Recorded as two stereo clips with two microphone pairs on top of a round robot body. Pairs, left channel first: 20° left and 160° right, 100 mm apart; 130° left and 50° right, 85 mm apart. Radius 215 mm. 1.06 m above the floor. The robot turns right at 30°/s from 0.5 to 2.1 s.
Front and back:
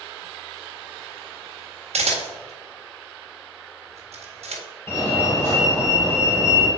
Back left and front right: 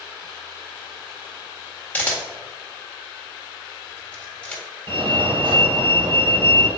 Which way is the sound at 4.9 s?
45° right.